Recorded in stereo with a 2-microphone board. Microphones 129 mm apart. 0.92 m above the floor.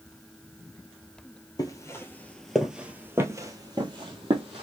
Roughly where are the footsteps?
Left.